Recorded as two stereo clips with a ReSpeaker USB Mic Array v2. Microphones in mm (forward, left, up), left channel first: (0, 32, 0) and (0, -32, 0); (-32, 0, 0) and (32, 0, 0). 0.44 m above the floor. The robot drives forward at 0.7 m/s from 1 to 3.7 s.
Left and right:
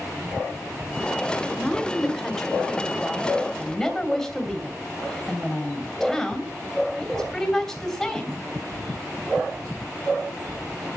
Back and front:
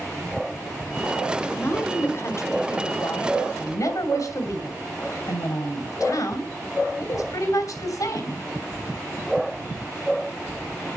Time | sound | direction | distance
1.5 | a woman speaking | 165° left | 1.5 m